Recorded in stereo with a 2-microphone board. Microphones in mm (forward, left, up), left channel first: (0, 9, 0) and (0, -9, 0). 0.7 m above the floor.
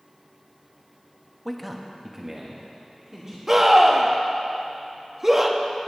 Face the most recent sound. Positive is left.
turn(degrees=-20)  # may be behind; listen again after turning